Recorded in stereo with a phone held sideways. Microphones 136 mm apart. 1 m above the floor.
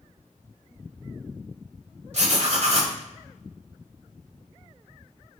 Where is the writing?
55° right (ahead or behind), 1.3 m.